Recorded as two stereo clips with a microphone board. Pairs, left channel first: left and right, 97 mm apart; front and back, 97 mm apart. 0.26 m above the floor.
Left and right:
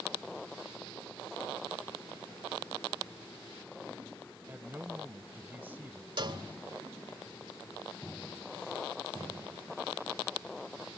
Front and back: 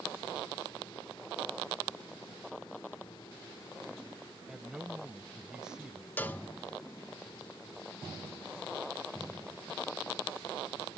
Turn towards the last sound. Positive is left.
turn(degrees=-70)